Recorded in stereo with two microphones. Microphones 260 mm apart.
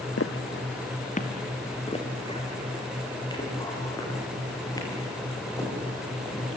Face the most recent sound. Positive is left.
turn(degrees=10)  # may be behind; listen again after turning